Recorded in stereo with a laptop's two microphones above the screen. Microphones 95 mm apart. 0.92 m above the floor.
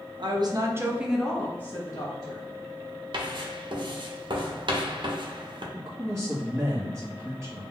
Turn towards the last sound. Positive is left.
turn(degrees=-30)  # may be behind; listen again after turning